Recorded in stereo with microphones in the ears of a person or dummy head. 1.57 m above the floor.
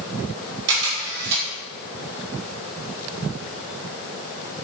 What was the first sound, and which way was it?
A camera shutter, 65° right (ahead or behind).